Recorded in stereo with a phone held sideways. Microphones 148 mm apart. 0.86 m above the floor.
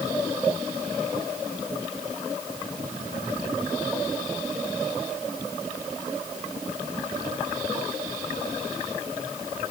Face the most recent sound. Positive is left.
No sound to turn to.